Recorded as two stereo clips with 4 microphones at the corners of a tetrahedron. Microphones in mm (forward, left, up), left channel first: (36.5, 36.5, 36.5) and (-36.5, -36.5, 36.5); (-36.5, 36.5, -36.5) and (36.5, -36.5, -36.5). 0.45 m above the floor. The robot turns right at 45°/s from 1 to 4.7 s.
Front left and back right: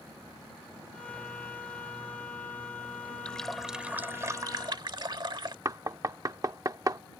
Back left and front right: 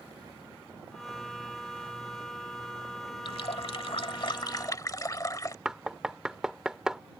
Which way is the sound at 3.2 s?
120° left.